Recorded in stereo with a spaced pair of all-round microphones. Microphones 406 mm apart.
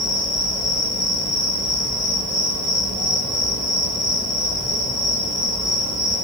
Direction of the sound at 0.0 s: 10° right (ahead or behind).